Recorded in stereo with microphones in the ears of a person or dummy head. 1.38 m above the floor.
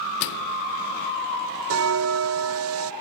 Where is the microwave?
60° left (ahead or behind), 0.6 m.